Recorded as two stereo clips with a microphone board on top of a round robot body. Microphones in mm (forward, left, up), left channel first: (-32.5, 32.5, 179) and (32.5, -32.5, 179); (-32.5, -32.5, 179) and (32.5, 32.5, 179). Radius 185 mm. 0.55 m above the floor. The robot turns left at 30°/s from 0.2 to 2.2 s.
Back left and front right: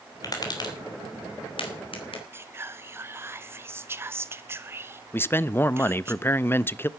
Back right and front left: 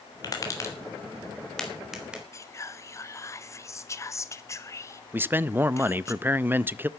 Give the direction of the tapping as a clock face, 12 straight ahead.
6 o'clock.